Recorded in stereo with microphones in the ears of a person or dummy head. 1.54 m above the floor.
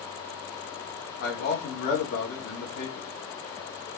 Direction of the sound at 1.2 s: 50° left (ahead or behind).